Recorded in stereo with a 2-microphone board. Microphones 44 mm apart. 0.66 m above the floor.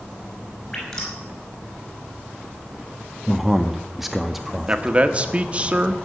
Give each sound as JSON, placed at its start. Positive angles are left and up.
{"t": 0.7, "sound": "dripping", "side_deg": 20, "distance_m": 6.5}
{"t": 3.3, "sound": "a man speaking", "side_deg": -5, "distance_m": 0.7}
{"t": 4.7, "sound": "a man speaking", "side_deg": -25, "distance_m": 1.1}